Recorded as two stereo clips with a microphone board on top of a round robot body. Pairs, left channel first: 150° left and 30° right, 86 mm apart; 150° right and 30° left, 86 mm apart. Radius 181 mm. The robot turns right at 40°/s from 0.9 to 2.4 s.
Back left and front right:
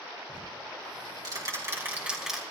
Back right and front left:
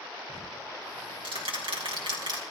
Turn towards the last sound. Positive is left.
turn(degrees=60)